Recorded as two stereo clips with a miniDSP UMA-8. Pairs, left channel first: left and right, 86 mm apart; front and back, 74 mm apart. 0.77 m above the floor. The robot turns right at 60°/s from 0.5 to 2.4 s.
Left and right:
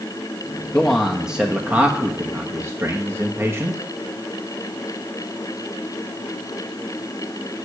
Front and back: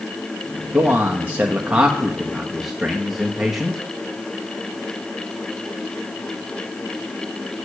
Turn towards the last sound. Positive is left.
turn(degrees=-100)